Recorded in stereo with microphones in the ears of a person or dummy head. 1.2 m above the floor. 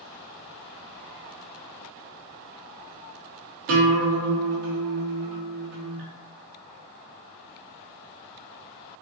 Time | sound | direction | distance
3.7 | a guitar | 50° right (ahead or behind) | 0.5 m